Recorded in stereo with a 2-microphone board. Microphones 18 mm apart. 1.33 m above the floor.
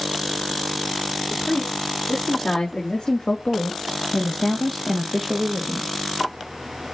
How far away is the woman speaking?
About 3.5 m.